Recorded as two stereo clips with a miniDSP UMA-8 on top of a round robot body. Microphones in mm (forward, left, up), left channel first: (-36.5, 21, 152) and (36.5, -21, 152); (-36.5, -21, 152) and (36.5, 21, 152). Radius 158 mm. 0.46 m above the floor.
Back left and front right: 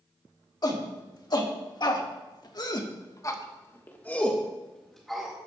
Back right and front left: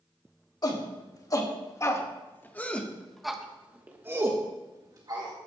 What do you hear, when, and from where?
0.6 s a shout: straight behind, 3 m; by 5.3 s 60° left, 2.5 m